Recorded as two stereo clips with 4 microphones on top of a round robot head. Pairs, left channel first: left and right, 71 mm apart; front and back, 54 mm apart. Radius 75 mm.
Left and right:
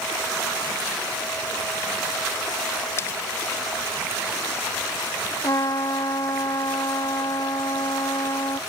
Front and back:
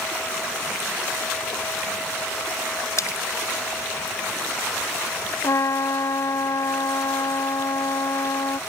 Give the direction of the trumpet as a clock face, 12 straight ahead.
11 o'clock.